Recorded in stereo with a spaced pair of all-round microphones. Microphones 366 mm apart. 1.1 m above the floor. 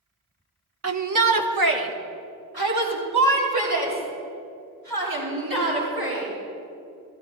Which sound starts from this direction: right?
A shout, at 0.8 s.